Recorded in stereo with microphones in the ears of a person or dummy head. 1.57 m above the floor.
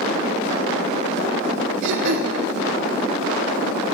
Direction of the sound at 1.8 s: 65° right (ahead or behind).